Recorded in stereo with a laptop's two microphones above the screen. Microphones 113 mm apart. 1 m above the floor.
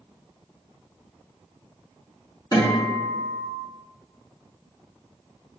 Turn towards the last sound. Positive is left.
turn(degrees=40)  # may be behind; listen again after turning